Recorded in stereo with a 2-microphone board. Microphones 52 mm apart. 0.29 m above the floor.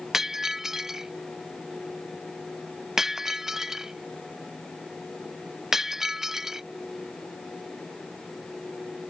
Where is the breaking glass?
5° right (ahead or behind).